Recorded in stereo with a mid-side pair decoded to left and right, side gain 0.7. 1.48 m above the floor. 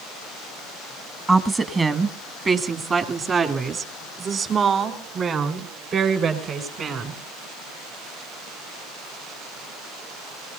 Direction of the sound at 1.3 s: 20° right.